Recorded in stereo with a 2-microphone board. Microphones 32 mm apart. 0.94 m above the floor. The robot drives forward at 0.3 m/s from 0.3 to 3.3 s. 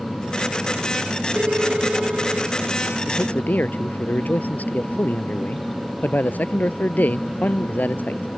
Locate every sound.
1.4 s a phone ringing: 55° right (ahead or behind); by 2.6 s 50° right (ahead or behind)
3.1 s a man speaking: 65° left (ahead or behind)